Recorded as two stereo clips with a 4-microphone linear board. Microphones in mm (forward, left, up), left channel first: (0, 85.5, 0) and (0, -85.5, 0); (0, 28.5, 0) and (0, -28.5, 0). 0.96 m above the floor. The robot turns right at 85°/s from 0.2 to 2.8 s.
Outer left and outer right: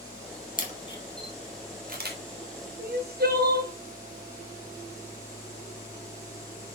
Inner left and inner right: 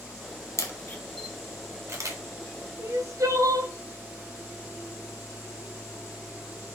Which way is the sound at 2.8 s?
65° right (ahead or behind).